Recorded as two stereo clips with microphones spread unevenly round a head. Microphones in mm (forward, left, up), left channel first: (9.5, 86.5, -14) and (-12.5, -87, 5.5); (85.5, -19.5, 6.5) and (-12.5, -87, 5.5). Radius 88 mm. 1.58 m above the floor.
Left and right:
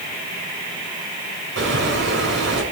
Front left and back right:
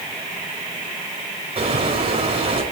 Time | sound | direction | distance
1.6 | a bird | 110° right | 6 m